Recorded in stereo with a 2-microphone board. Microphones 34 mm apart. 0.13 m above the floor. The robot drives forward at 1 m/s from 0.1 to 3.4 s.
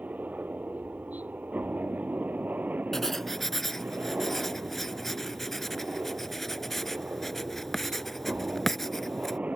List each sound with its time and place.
0.0 s a helicopter: 50° right (ahead or behind); by 9.6 s 40° right (ahead or behind)
2.9 s writing: 10° left (ahead or behind); by 9.4 s 5° left (ahead or behind)